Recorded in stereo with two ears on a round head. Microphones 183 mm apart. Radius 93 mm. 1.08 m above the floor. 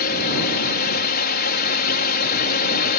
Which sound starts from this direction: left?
A drone, at 0.0 s.